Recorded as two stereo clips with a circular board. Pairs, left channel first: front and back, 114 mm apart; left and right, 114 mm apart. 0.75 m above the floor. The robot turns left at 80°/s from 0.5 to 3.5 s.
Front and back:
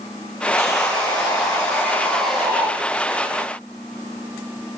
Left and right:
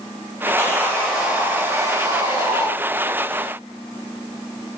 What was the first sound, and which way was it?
Sawing, 45° left.